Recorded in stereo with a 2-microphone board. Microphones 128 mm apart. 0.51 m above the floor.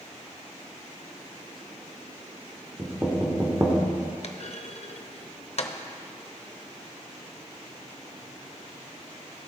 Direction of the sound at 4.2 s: 55° left (ahead or behind).